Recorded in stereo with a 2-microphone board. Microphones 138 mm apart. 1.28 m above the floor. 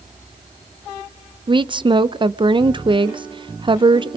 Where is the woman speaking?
35° right (ahead or behind), 0.7 m.